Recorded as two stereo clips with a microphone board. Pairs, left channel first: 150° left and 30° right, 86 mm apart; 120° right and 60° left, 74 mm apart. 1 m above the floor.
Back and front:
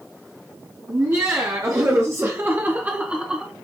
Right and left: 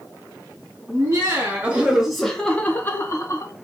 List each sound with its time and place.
0.9 s laughter: 20° left, 1.0 m; by 3.5 s 110° right, 0.9 m